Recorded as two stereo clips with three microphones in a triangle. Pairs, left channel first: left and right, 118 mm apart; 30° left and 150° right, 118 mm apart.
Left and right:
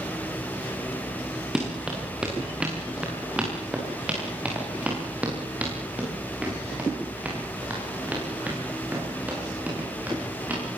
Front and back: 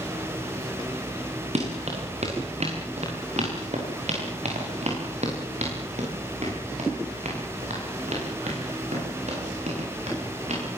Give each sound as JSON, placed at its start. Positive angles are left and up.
{"t": 1.6, "sound": "running footsteps", "azimuth_deg": -175, "distance_m": 8.0}